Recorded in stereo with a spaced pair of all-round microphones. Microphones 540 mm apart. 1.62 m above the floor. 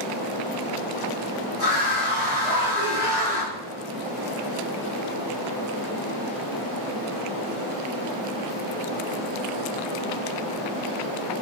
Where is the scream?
70° left (ahead or behind), 3.5 m.